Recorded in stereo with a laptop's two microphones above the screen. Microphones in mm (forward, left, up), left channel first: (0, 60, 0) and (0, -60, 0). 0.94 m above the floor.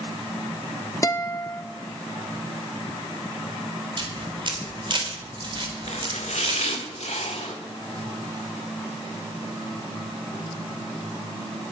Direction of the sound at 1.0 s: 25° left (ahead or behind).